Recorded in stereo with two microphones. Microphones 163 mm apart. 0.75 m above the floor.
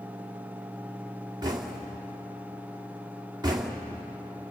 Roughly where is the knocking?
Right.